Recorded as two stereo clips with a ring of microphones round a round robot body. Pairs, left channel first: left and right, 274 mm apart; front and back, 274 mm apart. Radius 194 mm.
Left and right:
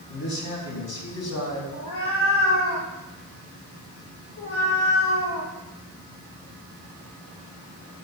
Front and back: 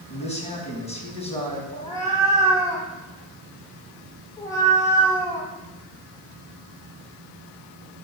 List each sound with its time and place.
0.1 s a man speaking: 65° left, 6 m
1.7 s a cat meowing: 80° left, 6 m